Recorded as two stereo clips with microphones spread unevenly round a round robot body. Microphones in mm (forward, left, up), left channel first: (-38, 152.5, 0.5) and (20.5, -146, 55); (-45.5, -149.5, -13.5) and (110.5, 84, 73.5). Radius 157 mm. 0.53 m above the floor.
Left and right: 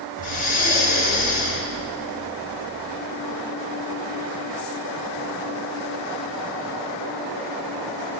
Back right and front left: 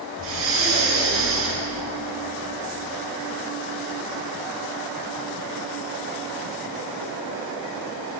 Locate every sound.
0.2 s breathing: 90° left, 1.1 m